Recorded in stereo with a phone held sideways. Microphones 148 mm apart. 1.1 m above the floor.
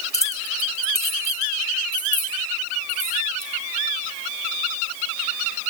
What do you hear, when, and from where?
0.1 s keys jangling: 25° left (ahead or behind), 1.7 m; by 3.5 s 20° right (ahead or behind), 5 m